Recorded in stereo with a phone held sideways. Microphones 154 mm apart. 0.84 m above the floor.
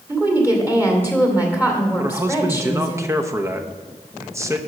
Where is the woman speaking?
15° right (ahead or behind), 2.5 m.